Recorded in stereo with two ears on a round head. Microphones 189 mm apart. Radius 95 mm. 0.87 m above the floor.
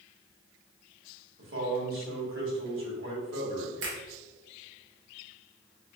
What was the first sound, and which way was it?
A man speaking, 70° right (ahead or behind).